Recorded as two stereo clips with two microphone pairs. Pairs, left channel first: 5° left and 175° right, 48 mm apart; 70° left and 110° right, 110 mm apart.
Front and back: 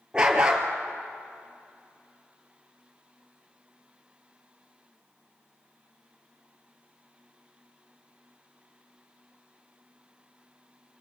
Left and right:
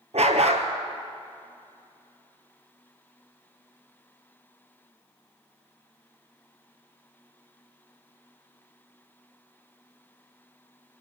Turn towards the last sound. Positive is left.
turn(degrees=-105)